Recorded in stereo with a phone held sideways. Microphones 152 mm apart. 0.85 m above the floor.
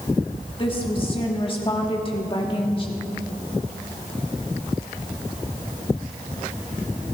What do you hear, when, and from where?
0.6 s a woman speaking: 35° left (ahead or behind), 1.4 m